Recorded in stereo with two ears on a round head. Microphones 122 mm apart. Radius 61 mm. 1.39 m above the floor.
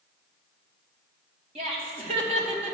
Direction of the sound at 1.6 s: 50° right (ahead or behind).